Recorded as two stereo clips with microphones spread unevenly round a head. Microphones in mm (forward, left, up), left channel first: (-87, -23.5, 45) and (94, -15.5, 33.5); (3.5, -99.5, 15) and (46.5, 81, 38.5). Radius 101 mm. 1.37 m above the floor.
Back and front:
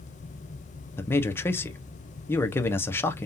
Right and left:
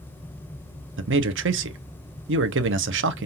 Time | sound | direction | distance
1.0 | a man speaking | 105° left | 1.0 m